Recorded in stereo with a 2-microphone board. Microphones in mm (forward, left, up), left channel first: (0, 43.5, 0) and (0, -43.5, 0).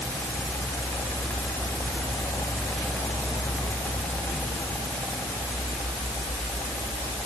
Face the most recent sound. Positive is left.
No sound to turn to.